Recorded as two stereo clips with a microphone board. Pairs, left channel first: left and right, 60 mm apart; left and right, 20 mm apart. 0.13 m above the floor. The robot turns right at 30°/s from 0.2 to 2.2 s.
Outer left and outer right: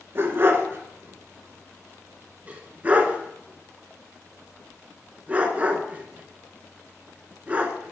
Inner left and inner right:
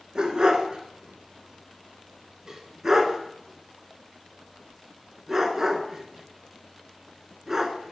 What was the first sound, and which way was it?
A dog barking, 40° right (ahead or behind).